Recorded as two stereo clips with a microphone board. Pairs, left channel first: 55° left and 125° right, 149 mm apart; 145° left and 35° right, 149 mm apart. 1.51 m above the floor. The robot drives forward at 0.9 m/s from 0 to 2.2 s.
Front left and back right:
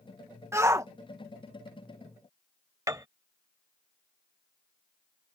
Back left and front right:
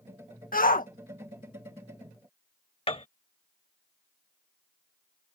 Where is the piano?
175° left.